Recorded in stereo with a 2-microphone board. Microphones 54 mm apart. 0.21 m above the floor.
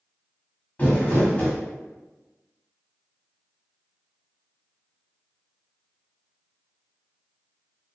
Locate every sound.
0.8 s crumpling: 30° left (ahead or behind), 1.2 m